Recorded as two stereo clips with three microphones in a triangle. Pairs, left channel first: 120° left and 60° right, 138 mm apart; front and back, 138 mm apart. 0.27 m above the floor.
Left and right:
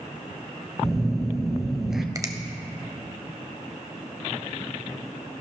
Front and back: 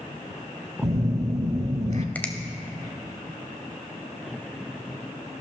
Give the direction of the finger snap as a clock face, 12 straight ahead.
2 o'clock.